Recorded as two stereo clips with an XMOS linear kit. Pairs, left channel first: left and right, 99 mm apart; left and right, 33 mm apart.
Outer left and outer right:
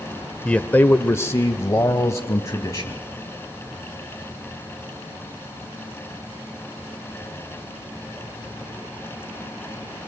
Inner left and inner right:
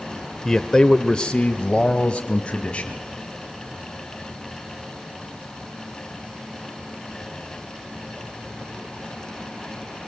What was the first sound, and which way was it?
A man speaking, 10° left (ahead or behind).